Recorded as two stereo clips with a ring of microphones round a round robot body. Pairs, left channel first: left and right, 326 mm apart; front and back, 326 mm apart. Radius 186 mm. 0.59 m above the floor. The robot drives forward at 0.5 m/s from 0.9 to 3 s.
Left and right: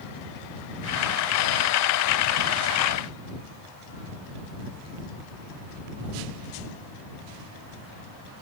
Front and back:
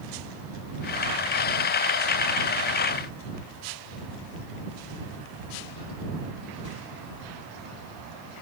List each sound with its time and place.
Only background noise.